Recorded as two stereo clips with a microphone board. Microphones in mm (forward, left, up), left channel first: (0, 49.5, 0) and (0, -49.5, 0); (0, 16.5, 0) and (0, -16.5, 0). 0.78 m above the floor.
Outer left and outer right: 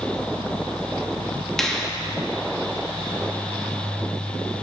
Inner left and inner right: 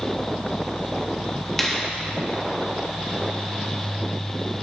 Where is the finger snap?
5° left (ahead or behind), 1.2 m.